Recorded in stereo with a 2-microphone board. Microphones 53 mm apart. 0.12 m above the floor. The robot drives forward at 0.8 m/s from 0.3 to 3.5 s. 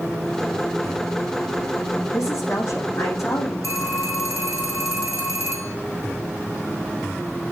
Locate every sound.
2.1 s a woman speaking: 70° left (ahead or behind), 5 m
3.6 s a phone ringing: 75° left (ahead or behind), 4.5 m